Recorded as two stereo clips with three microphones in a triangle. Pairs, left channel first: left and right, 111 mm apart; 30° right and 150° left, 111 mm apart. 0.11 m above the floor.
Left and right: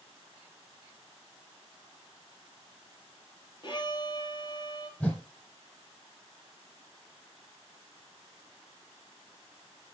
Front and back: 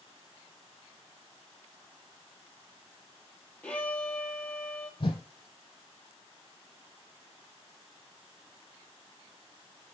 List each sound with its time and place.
3.6 s a violin: 50° left, 1.5 m
5.0 s a whoosh: 10° left, 1.5 m